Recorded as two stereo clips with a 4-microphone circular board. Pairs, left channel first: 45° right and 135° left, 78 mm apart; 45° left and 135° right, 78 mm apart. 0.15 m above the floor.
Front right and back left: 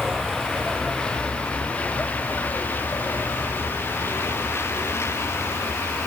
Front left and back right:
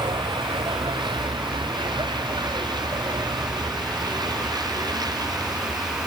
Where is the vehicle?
140° right; by 6.1 s 100° right.